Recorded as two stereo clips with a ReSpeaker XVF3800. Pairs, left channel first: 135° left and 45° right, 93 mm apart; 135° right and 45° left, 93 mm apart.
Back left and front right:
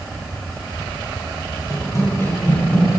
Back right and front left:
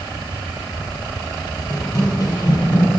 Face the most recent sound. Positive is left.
turn(degrees=-140)